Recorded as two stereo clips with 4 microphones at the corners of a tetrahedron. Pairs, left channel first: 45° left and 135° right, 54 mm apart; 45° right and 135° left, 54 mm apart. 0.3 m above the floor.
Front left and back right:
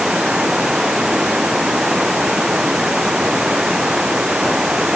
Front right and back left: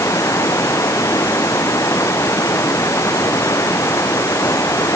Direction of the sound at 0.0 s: 55° right.